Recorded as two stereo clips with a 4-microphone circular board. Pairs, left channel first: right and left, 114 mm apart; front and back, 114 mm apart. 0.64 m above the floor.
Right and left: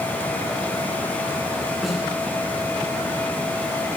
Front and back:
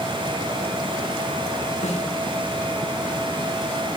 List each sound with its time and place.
1.8 s a snare drum: straight ahead, 8 m